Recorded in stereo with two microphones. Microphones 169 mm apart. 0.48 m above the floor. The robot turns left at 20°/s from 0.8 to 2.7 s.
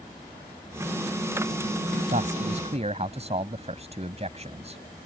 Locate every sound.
2.1 s a man speaking: 50° right (ahead or behind); by 4.8 s 40° right (ahead or behind)